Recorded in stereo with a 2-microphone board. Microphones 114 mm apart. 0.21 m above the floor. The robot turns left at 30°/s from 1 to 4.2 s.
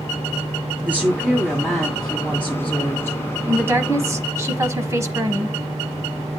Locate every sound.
0.8 s a woman speaking: 160° right, 1.6 m; by 3.2 s 135° left, 1.6 m
3.5 s a woman speaking: 20° right (ahead or behind), 1.2 m; by 5.6 s 25° right (ahead or behind), 1.2 m